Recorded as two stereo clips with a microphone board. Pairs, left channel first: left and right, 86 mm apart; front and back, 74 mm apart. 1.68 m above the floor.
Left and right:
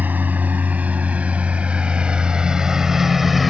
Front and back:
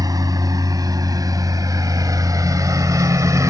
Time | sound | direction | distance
0.0 | a lawn mower | 160° right | ?